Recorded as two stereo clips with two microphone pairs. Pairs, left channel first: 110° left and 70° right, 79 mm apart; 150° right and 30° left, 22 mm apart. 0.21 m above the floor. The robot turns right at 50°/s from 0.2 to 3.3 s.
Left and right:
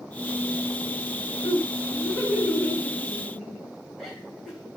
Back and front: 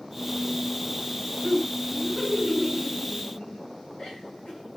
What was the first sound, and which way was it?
Laughter, 120° left.